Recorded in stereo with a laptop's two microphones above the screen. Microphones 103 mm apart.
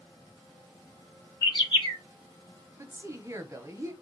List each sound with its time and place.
1.4 s a bird: 50° left (ahead or behind), 1.9 m
2.8 s a woman speaking: 30° right (ahead or behind), 0.8 m